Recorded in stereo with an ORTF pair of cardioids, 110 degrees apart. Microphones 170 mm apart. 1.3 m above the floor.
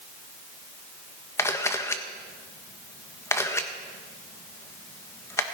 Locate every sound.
1.4 s a camera shutter: 15° left, 1.4 m